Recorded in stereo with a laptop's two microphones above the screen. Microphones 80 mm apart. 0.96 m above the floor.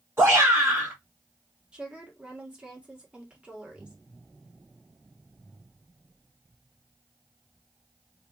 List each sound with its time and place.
0.2 s a shout: 30° right (ahead or behind), 1.2 m
1.7 s a woman speaking: 15° right (ahead or behind), 1.5 m